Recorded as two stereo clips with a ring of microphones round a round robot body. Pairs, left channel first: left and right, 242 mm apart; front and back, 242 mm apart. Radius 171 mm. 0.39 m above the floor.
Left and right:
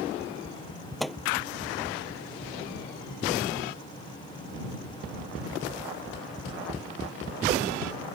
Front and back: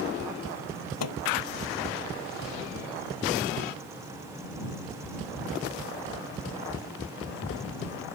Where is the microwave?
Straight ahead.